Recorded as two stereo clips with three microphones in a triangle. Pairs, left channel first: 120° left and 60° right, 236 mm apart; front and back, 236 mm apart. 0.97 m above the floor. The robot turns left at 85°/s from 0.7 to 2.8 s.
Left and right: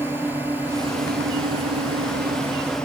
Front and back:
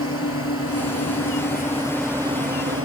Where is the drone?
20° left; by 2.9 s 155° right.